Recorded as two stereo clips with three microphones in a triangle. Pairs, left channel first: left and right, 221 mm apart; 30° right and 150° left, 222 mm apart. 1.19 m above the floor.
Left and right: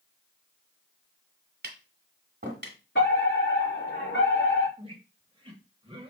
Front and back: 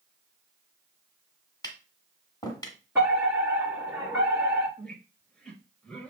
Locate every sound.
1.6 s tapping: 100° right, 1.5 m
3.0 s a fire alarm: 75° left, 4 m
4.8 s a squeak: 110° right, 1.0 m